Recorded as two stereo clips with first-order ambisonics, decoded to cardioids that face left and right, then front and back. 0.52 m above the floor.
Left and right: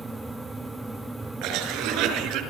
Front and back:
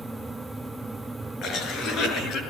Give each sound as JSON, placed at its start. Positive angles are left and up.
{"t": 1.4, "sound": "a cough", "azimuth_deg": -55, "distance_m": 7.0}